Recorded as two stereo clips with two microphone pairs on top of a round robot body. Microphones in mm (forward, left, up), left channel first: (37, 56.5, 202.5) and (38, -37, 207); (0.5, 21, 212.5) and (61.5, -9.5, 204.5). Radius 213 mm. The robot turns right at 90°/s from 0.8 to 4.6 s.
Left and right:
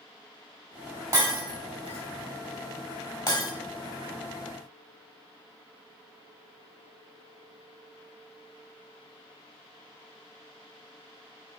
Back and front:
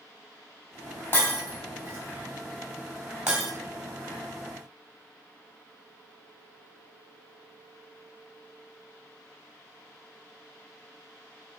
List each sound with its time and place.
1.1 s breaking glass: 145° right, 3 m; by 3.5 s 70° left, 3 m